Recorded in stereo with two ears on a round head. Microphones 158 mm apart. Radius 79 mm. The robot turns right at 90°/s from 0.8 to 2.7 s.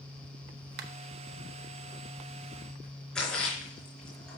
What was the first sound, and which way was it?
A finger snap, 60° right (ahead or behind).